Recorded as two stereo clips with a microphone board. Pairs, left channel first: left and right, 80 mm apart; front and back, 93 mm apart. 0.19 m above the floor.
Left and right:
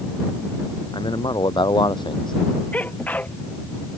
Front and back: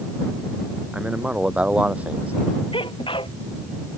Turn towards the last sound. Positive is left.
turn(degrees=20)